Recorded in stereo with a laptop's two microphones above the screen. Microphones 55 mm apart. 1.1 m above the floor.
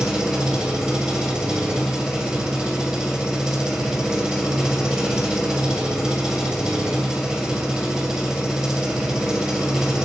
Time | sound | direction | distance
0.0 | an engine running | 10° right (ahead or behind) | 2.5 m